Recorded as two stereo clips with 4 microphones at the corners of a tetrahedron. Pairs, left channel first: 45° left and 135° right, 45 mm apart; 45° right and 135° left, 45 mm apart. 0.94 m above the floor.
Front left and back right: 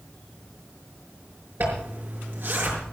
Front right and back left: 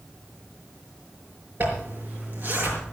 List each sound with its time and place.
1.6 s a zipper: straight behind, 5.5 m